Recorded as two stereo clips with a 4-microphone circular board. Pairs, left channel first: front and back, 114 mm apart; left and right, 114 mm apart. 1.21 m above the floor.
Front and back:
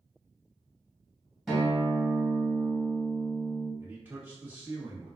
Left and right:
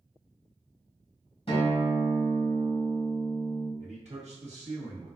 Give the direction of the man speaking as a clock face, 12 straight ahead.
4 o'clock.